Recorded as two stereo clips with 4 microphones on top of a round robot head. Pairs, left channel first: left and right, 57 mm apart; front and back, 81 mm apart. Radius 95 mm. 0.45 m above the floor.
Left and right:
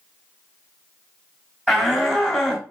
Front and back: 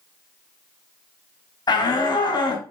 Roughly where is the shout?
Ahead.